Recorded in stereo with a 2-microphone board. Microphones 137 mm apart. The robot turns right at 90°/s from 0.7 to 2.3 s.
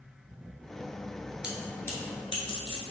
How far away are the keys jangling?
About 1.0 m.